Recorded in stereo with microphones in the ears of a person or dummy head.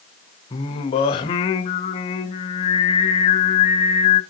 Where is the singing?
25° left (ahead or behind), 1.0 m.